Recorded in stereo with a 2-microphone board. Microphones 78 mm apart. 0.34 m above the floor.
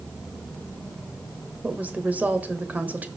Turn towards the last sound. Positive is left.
turn(degrees=-20)  # may be behind; listen again after turning